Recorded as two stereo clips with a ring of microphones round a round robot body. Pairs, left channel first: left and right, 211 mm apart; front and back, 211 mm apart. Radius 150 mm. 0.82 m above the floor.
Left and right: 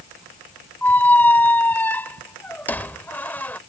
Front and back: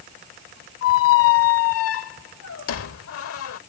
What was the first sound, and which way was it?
A squeak, 10° left.